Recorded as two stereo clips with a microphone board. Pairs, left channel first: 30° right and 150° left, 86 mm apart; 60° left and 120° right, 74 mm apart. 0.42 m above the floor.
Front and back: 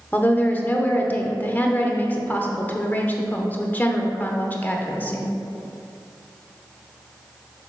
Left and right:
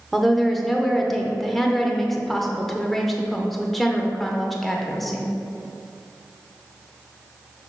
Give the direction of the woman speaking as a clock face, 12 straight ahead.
1 o'clock.